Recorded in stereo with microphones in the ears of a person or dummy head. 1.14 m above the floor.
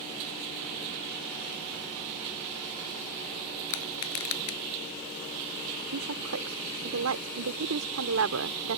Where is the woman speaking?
80° right.